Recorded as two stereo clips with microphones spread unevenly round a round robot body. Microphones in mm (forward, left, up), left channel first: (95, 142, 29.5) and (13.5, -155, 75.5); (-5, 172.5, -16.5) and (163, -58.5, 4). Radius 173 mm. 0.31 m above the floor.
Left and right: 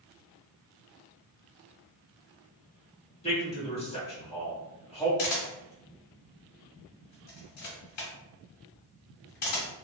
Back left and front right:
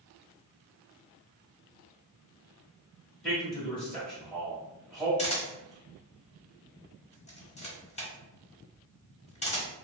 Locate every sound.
3.2 s a man speaking: 45° left, 1.6 m
5.2 s a camera shutter: 60° left, 1.3 m